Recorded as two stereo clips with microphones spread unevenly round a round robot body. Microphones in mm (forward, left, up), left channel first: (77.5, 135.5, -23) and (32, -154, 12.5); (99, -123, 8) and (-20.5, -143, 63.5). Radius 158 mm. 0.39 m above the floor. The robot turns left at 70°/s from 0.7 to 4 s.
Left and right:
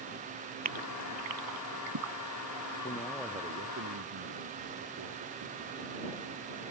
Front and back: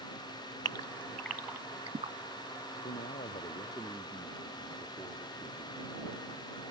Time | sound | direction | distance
0.7 | a gasp | 35° right | ?
2.8 | a man speaking | 15° left | ?